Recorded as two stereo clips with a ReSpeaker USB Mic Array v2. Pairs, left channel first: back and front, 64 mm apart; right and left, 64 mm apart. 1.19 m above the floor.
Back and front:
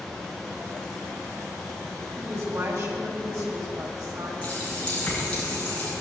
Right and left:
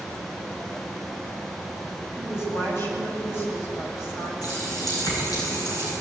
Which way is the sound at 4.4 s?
105° right.